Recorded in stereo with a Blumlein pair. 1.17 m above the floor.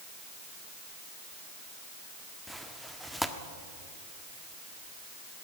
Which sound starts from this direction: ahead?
Tearing paper, at 2.5 s.